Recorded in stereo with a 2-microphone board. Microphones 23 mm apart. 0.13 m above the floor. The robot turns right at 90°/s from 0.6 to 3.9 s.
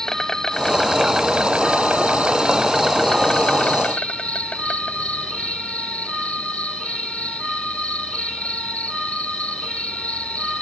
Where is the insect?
155° left; by 10.6 s 90° left.